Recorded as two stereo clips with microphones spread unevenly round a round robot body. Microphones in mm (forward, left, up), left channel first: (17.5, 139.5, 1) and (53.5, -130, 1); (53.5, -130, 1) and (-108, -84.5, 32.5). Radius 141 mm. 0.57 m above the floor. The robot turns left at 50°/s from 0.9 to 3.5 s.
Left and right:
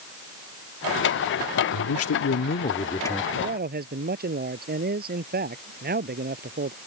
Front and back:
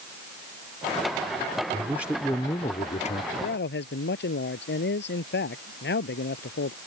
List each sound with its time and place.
1.7 s a man speaking: 90° left; by 3.2 s 10° left
3.3 s a man speaking: 15° right; by 6.8 s 25° right